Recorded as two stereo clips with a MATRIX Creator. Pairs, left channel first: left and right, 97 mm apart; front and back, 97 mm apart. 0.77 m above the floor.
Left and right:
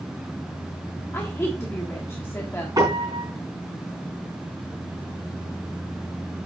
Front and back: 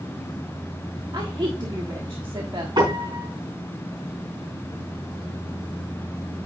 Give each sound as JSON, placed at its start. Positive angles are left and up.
{"t": 1.1, "sound": "a woman speaking", "azimuth_deg": 150, "distance_m": 1.3}
{"t": 2.8, "sound": "a piano", "azimuth_deg": -140, "distance_m": 4.0}